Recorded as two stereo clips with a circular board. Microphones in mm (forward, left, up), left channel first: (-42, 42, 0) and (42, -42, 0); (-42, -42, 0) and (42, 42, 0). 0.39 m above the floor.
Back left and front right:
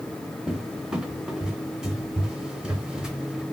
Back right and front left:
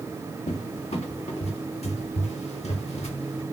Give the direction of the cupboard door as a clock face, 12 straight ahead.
4 o'clock.